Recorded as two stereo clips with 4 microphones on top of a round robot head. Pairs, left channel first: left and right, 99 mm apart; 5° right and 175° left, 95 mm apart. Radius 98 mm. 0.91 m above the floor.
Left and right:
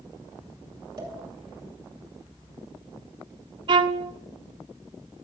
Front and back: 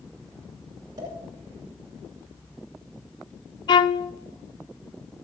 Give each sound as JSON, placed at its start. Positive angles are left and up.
{"t": 1.0, "sound": "a pop", "azimuth_deg": -125, "distance_m": 7.5}
{"t": 3.7, "sound": "a violin", "azimuth_deg": -45, "distance_m": 0.6}